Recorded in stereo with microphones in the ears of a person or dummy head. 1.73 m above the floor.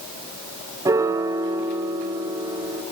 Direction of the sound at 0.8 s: 20° right (ahead or behind).